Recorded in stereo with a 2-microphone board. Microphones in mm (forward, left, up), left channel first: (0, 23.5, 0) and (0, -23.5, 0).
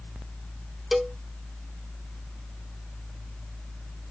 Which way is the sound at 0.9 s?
Centre (ahead or behind).